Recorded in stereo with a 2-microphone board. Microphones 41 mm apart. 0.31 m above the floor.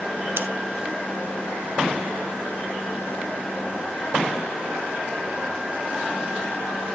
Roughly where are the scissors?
Right.